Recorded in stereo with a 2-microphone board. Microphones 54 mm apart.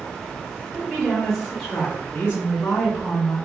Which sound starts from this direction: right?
A woman speaking, at 0.7 s.